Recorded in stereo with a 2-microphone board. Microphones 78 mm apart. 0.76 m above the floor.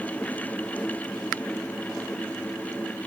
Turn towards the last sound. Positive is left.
No sound to turn to.